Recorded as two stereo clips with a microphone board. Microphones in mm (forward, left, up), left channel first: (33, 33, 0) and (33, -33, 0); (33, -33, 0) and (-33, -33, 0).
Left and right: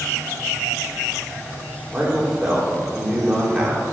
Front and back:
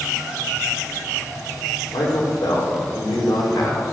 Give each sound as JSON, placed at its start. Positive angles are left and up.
{"t": 1.9, "sound": "a man speaking", "azimuth_deg": -10, "distance_m": 5.0}